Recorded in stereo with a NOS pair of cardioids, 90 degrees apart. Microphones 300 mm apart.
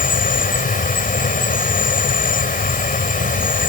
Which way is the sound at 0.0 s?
25° left.